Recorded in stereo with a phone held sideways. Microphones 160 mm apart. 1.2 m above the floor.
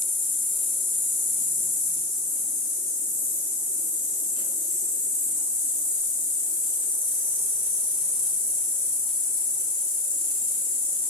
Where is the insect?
30° left (ahead or behind), 3 m.